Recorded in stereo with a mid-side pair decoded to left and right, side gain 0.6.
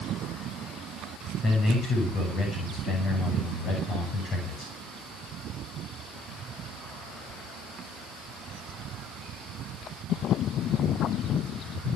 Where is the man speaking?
45° left, 7 m.